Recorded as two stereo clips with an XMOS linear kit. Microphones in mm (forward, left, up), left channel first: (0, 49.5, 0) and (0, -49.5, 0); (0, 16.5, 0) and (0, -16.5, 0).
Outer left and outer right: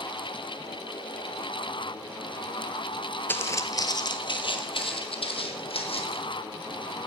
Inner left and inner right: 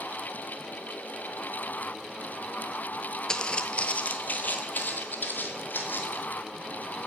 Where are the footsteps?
20° left (ahead or behind), 0.6 m; by 6.2 s 75° left (ahead or behind), 1.9 m.